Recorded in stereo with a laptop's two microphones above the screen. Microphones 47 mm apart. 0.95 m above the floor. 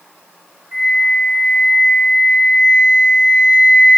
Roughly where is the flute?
Right.